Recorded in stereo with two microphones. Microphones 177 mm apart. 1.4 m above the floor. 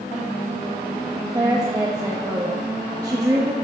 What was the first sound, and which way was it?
A woman speaking, 20° right (ahead or behind).